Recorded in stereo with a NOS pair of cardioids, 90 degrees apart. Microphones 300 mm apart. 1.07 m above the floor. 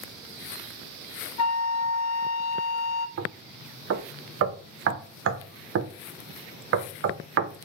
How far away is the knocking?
About 0.7 m.